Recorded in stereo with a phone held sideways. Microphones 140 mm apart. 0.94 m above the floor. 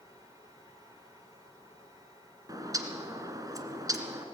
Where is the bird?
25° right (ahead or behind), 1.6 m.